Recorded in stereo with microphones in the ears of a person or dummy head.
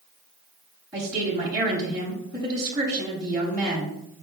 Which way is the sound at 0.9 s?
20° right (ahead or behind).